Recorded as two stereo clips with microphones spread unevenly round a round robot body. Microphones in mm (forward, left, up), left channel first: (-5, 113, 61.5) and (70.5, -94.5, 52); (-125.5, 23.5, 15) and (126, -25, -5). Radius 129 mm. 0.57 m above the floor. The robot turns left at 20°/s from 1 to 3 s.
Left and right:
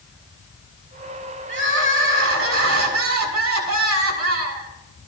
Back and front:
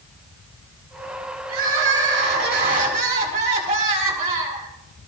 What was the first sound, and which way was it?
Crying, 45° right.